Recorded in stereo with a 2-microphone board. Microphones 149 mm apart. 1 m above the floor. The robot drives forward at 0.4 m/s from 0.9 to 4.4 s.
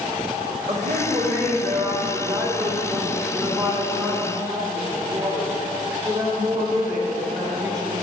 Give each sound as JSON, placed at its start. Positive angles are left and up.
{"t": 0.7, "sound": "a woman speaking", "side_deg": -50, "distance_m": 2.0}